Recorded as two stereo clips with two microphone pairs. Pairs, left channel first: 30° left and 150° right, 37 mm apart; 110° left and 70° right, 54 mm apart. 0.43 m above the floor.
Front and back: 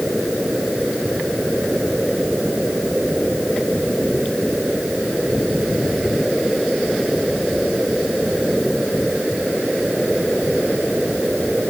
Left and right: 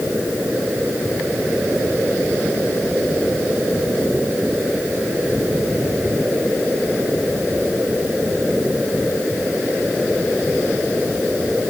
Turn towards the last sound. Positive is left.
No sound to turn to.